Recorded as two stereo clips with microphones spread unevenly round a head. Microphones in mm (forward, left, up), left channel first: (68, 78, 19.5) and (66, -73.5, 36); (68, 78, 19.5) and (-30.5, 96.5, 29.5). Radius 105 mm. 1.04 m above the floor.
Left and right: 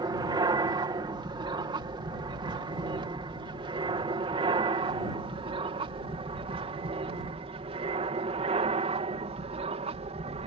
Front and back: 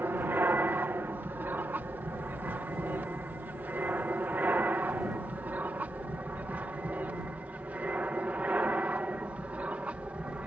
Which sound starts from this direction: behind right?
An aircraft, at 0.0 s.